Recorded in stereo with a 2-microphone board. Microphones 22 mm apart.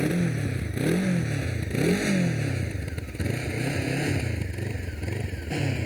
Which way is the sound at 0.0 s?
Centre (ahead or behind).